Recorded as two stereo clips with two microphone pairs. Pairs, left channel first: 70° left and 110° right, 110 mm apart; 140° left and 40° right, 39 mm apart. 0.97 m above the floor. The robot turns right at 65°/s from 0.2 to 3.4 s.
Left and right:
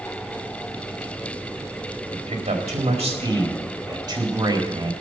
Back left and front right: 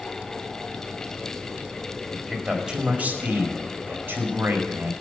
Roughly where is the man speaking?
Behind right.